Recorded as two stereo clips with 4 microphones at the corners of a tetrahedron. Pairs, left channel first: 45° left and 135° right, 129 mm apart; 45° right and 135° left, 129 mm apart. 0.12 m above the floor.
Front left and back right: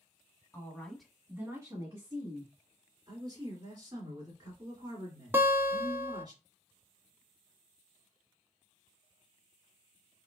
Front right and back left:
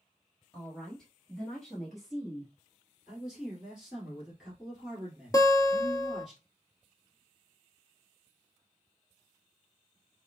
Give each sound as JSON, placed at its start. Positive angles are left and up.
{"t": 0.5, "sound": "a woman speaking", "azimuth_deg": 25, "distance_m": 1.1}
{"t": 3.1, "sound": "a man speaking", "azimuth_deg": -145, "distance_m": 1.9}
{"t": 5.3, "sound": "a guitar", "azimuth_deg": -70, "distance_m": 0.6}